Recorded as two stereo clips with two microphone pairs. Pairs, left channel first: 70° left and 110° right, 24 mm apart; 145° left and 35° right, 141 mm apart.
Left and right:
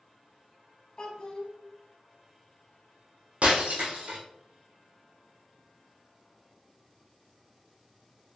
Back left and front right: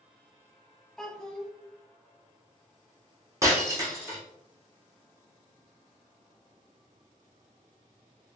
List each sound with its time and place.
1.0 s a child speaking: 55° left, 1.0 m
3.4 s breaking glass: 100° right, 1.3 m